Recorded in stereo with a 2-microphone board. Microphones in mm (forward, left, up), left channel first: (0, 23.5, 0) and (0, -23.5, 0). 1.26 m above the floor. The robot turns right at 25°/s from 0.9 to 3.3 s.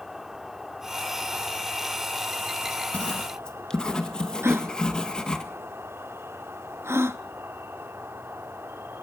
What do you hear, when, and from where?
0.0 s an insect: 170° right, 1.4 m; by 9.0 s 110° right, 1.4 m
2.9 s writing: 25° left (ahead or behind), 1.9 m; by 5.4 s 15° left (ahead or behind), 1.9 m
4.4 s a gasp: 65° right (ahead or behind), 1.0 m